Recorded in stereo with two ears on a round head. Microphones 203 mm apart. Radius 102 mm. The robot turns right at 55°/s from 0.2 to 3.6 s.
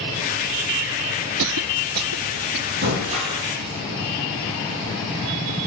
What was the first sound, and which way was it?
A cough, 60° right (ahead or behind).